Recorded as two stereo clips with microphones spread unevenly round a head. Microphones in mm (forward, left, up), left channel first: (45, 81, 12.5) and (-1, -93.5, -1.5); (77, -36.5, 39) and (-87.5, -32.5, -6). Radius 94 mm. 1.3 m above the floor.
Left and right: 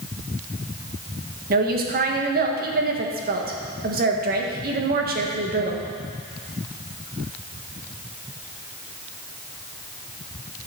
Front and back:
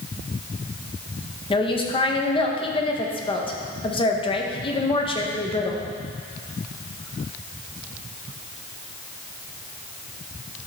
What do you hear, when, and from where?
1.5 s a woman speaking: 65° right, 1.4 m